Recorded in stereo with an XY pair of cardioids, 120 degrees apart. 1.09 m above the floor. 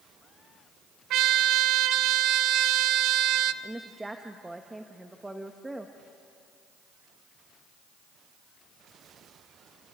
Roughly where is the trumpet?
Right.